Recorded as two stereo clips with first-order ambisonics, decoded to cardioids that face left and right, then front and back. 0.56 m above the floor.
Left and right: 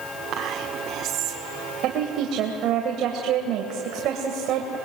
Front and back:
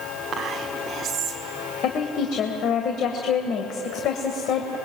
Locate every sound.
0.3 s whispering: 125° right, 1.3 m
1.8 s a woman speaking: 50° right, 2 m